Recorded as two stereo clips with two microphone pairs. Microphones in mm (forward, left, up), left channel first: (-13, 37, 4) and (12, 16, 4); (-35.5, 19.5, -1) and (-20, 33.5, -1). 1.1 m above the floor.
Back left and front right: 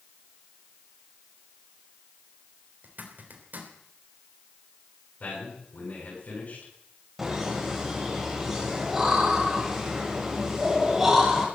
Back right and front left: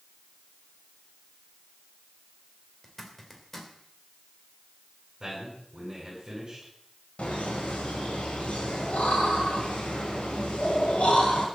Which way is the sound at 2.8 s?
65° right.